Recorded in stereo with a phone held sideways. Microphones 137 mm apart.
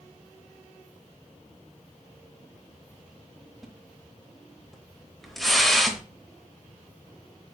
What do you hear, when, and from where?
3.6 s a splash: centre (ahead or behind), 0.8 m